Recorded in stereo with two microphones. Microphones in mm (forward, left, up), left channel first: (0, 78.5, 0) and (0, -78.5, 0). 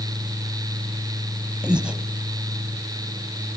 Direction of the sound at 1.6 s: 5° right (ahead or behind).